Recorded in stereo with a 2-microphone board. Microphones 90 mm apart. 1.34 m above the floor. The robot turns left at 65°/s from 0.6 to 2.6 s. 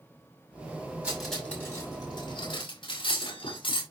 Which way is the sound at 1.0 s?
15° right (ahead or behind).